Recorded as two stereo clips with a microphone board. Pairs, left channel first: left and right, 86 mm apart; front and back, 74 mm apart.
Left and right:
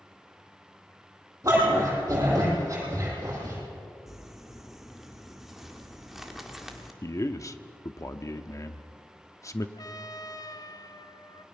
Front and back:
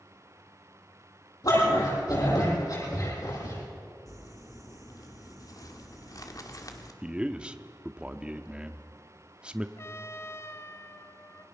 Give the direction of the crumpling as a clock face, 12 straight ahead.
12 o'clock.